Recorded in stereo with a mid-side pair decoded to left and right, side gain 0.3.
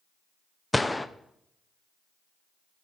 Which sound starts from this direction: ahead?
A gunshot, at 0.7 s.